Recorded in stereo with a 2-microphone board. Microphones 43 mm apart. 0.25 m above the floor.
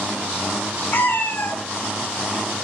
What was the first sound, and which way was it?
A cat meowing, 60° left (ahead or behind).